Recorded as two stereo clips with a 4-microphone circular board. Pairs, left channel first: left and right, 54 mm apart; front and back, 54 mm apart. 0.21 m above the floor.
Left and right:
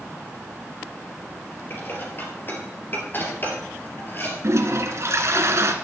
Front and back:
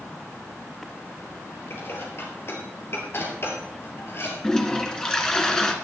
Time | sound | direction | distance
1.7 | dishes clattering | 40° left | 3.5 m
4.4 | a toilet flushing | 75° right | 1.6 m